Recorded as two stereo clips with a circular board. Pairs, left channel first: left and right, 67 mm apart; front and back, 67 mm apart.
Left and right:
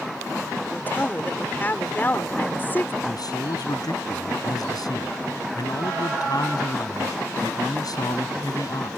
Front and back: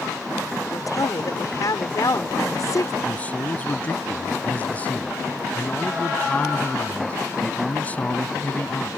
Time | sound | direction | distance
0.7 | a woman speaking | 30° left | ?
3.0 | a man speaking | 70° left | ?